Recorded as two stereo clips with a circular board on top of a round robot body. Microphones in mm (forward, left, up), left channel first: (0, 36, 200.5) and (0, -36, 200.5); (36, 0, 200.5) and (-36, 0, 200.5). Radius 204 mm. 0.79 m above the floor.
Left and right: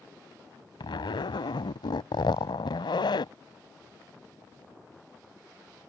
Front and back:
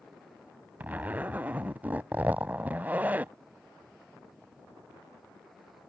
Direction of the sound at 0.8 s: 110° left.